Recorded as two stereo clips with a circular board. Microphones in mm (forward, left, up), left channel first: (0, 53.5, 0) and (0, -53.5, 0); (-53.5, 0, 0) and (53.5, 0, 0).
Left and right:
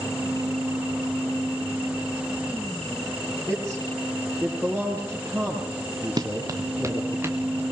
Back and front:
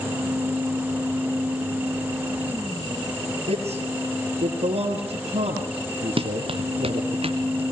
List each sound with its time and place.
3.5 s a man speaking: 15° right, 5.5 m
6.2 s running footsteps: 35° right, 1.7 m; by 7.6 s 20° right, 3 m